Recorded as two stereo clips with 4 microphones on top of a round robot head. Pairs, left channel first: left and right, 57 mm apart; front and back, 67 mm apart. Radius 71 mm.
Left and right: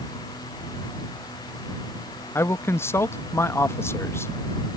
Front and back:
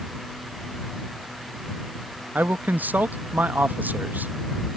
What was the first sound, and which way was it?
A man speaking, 120° left.